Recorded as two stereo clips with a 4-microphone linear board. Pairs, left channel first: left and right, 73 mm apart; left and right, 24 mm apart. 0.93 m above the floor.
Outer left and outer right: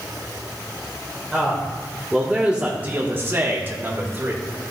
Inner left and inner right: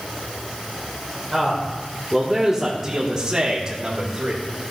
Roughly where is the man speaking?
Centre.